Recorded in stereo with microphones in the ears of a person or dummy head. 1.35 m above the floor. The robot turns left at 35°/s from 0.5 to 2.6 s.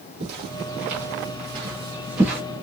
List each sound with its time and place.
0.2 s footsteps: 50° right (ahead or behind), 2.5 m; by 2.4 s centre (ahead or behind), 1.6 m